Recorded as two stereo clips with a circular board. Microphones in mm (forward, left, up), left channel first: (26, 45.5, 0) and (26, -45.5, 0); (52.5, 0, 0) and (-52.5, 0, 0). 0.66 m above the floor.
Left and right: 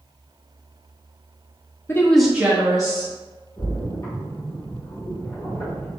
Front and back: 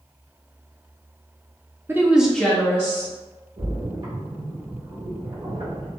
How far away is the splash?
About 1.9 m.